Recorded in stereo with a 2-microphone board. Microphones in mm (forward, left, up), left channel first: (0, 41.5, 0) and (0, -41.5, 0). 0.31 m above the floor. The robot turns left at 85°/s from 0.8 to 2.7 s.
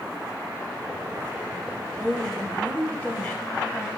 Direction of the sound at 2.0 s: 5° right (ahead or behind).